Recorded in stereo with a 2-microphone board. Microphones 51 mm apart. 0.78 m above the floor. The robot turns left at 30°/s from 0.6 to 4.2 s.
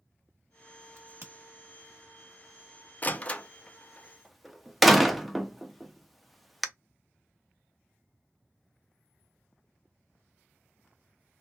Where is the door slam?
35° left (ahead or behind), 0.5 m; by 6.7 s centre (ahead or behind), 0.5 m.